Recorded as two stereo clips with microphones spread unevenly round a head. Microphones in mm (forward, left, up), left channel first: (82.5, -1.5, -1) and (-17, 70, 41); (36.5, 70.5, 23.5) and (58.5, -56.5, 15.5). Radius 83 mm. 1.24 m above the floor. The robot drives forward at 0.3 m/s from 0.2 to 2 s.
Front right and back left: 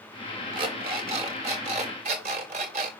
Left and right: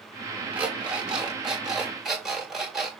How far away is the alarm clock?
About 0.9 m.